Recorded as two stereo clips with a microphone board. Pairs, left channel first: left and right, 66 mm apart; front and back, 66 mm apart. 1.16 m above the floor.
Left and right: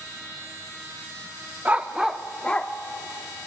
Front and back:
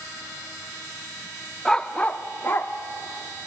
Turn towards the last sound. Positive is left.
turn(degrees=30)